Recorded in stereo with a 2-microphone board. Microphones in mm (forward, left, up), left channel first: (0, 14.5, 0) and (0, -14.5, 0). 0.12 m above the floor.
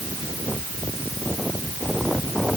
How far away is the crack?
I don't hear a crack.